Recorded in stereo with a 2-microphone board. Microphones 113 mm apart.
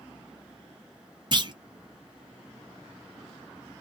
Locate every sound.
1.3 s a clunk: 40° right (ahead or behind), 0.6 m